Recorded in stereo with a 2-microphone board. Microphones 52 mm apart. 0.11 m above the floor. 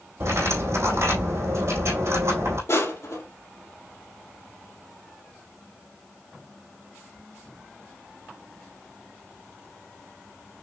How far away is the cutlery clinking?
About 3 m.